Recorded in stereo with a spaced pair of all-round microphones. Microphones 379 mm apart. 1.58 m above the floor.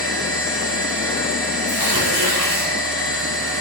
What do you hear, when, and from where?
0.0 s a machine running: 30° right (ahead or behind), 7.5 m
1.7 s tearing paper: 80° right, 5.5 m